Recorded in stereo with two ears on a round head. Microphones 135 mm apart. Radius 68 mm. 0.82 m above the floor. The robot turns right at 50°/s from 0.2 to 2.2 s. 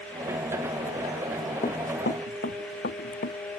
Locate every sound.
1.6 s running footsteps: 35° left (ahead or behind); by 3.4 s 80° left